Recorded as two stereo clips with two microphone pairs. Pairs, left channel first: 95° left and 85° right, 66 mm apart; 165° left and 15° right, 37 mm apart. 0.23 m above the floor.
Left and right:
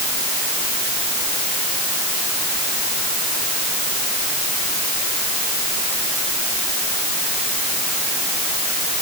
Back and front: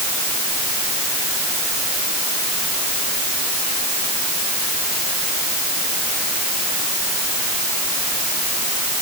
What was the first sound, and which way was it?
Only background noise.